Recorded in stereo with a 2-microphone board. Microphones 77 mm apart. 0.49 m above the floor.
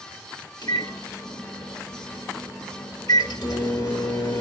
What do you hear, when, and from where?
0.6 s a microwave: 70° left (ahead or behind), 1.3 m